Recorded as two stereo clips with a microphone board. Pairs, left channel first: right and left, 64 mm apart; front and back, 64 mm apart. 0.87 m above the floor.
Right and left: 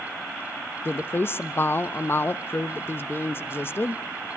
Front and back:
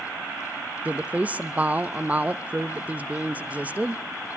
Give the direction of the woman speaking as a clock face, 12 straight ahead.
4 o'clock.